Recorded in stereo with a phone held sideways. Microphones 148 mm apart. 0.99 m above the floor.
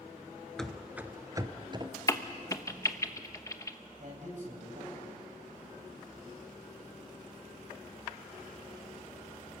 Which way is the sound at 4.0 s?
60° right (ahead or behind).